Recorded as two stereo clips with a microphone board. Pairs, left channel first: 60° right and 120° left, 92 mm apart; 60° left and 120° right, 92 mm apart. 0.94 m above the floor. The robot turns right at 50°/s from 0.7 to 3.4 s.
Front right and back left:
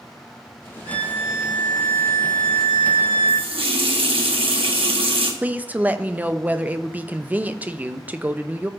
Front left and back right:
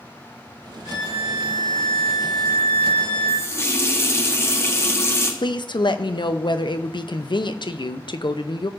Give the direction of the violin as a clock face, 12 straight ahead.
2 o'clock.